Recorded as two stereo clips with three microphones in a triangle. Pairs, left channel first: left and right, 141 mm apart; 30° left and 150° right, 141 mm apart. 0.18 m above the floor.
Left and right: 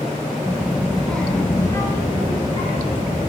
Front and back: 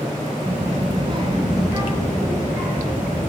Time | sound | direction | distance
0.4 | a child speaking | 150° right | 1.3 m